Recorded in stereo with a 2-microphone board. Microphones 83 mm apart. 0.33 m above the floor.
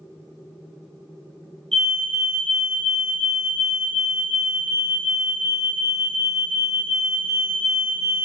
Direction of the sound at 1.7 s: 5° left (ahead or behind).